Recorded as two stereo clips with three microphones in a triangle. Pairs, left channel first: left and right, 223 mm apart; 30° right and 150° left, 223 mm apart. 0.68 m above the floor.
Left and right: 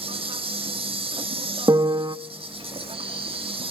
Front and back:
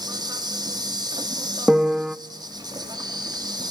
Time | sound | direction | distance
0.0 | an insect | 145° right | 2 m
1.7 | a piano | 130° right | 0.5 m